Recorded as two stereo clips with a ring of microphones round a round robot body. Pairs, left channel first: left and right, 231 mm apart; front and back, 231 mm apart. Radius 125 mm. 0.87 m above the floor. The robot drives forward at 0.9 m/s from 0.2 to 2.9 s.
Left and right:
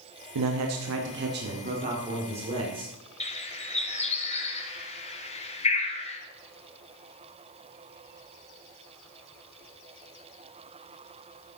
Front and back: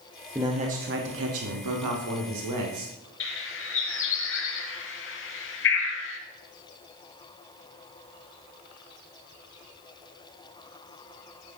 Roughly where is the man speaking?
Right.